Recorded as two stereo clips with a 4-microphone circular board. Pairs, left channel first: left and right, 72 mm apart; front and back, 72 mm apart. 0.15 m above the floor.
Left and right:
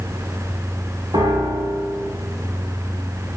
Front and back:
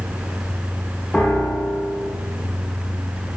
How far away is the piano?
About 4 m.